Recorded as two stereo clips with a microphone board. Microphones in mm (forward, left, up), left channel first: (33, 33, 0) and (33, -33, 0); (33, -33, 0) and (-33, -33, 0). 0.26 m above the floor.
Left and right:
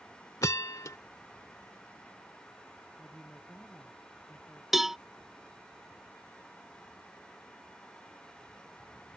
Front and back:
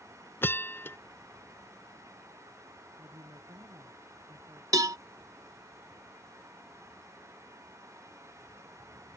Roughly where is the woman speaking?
Behind.